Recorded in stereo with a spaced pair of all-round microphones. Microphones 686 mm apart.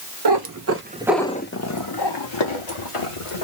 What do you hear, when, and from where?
0.2 s a cat meowing: 40° right (ahead or behind), 0.8 m; by 3.5 s 50° left (ahead or behind), 1.6 m